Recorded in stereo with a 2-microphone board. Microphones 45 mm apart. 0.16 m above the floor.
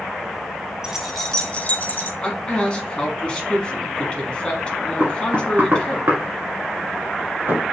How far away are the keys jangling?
About 0.8 m.